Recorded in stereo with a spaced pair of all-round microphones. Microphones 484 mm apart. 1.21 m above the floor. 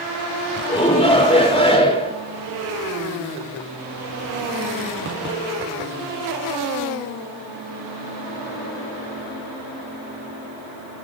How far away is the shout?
About 4.5 m.